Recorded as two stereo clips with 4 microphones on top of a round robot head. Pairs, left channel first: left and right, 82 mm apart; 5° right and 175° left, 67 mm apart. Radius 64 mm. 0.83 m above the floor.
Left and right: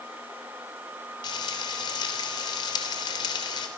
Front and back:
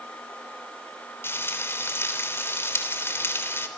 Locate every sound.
1.2 s frying: 50° left, 3.5 m